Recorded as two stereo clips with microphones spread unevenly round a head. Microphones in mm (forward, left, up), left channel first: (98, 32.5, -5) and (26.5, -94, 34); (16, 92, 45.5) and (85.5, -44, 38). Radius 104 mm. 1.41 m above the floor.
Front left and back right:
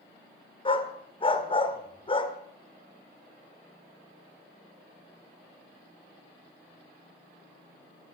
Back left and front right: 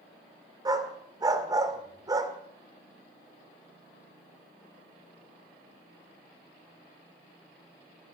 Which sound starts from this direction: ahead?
A dog barking, at 0.7 s.